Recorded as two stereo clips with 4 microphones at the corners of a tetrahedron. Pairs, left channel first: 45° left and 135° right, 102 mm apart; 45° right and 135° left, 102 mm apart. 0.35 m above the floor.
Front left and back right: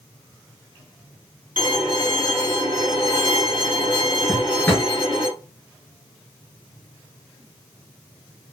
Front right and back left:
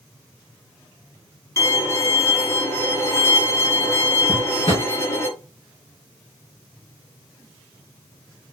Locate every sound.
1.6 s a violin: 10° left, 3 m
4.3 s a drawer: 30° right, 3 m